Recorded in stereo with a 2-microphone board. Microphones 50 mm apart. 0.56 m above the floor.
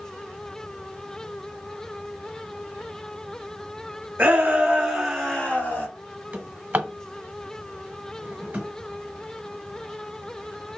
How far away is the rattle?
No rattle in this recording.